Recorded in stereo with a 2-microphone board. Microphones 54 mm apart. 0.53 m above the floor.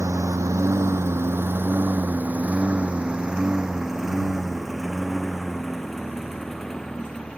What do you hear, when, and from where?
0.0 s a lawn mower: 70° right (ahead or behind); by 7.4 s 10° left (ahead or behind)